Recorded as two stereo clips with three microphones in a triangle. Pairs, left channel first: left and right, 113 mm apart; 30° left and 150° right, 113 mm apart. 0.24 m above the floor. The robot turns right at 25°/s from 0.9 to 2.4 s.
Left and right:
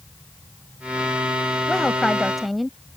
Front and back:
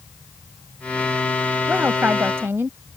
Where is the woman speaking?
165° left; by 2.8 s straight behind.